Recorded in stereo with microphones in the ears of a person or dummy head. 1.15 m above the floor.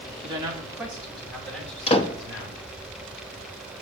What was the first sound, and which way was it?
A man speaking, 30° right (ahead or behind).